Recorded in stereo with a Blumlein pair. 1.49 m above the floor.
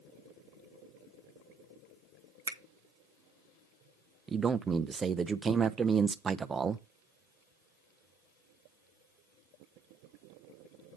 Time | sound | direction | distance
2.5 | a finger snap | 70° right | 0.8 m
4.3 | a man speaking | 15° right | 0.6 m